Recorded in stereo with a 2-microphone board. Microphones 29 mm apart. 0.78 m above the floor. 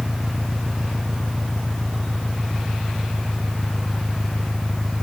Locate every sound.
0.0 s an engine running: centre (ahead or behind)